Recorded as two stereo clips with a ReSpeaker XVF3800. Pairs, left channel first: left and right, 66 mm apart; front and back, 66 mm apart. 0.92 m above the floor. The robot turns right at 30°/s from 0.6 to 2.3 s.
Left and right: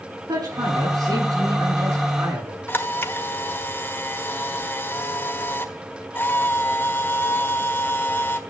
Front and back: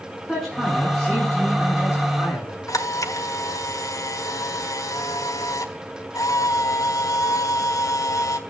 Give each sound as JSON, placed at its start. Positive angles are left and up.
{"t": 0.3, "sound": "a man speaking", "azimuth_deg": -95, "distance_m": 8.5}
{"t": 2.7, "sound": "a camera shutter", "azimuth_deg": 30, "distance_m": 1.5}